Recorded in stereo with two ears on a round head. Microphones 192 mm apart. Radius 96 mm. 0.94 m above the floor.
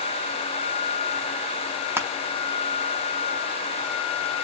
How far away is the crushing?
About 0.5 m.